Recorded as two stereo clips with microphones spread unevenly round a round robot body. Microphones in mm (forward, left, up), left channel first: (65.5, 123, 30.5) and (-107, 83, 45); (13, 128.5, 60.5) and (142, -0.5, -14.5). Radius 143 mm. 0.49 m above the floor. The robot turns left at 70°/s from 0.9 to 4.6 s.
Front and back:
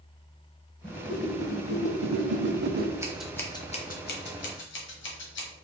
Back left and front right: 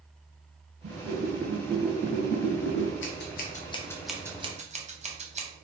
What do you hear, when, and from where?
0.8 s a whoosh: 70° right, 0.6 m; by 2.9 s 150° left, 0.6 m
3.0 s scissors: 120° left, 1.2 m; by 5.5 s 5° left, 1.2 m